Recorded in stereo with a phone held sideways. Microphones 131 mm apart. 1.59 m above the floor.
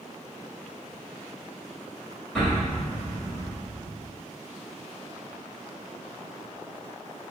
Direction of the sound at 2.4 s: 5° left (ahead or behind).